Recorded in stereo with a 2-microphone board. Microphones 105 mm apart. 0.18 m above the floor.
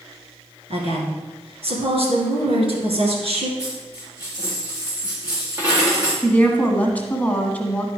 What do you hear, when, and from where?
0.7 s a woman speaking: 65° right (ahead or behind), 2 m
3.6 s a dropped coin: 20° right (ahead or behind), 4 m
6.2 s a woman speaking: 15° left (ahead or behind), 1.3 m